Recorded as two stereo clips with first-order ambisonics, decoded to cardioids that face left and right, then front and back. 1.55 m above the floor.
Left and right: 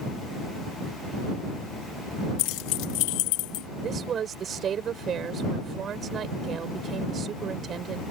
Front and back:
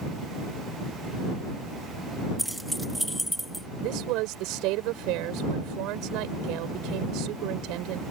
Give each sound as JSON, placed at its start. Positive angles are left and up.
{"t": 2.4, "sound": "keys jangling", "azimuth_deg": 90}
{"t": 3.8, "sound": "a woman speaking", "azimuth_deg": -150}